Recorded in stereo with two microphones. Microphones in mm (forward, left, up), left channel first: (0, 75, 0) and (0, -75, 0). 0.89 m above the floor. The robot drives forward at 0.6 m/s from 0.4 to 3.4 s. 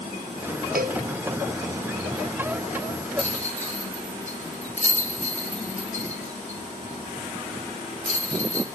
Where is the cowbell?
80° right, 0.5 m; by 1.0 s 65° right (ahead or behind), 0.6 m.